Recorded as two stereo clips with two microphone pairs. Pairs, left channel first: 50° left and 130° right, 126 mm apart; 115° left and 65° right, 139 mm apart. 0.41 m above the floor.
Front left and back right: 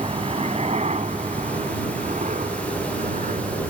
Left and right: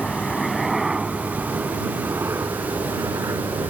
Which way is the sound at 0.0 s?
160° right.